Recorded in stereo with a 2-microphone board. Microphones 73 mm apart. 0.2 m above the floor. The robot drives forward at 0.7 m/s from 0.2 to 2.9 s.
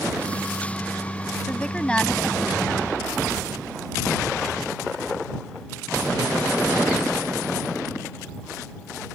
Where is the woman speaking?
15° left (ahead or behind).